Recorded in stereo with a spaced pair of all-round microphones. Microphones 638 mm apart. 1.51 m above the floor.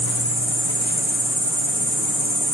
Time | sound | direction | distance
0.0 | an insect | 10° right (ahead or behind) | 7.5 m